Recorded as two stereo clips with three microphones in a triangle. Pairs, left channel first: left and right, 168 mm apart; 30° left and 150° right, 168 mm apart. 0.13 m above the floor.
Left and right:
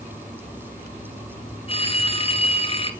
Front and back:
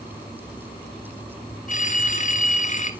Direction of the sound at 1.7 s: 45° left.